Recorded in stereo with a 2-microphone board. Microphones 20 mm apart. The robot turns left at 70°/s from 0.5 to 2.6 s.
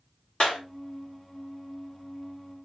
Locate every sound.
0.4 s a clap: 60° left (ahead or behind), 2.5 m; by 0.6 s 65° left (ahead or behind), 2.5 m